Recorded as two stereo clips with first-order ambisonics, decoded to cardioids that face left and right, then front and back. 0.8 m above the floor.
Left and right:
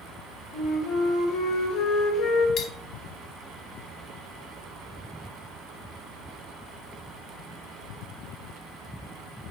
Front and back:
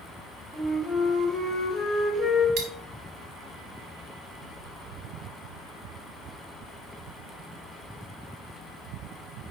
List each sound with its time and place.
0.5 s a flute: 60° left, 1.4 m
2.6 s cutlery clinking: 145° left, 1.0 m